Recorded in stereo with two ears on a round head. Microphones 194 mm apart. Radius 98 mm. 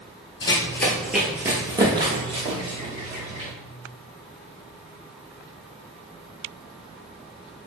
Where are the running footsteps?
20° left (ahead or behind), 0.8 m; by 3.5 s 35° right (ahead or behind), 1.9 m.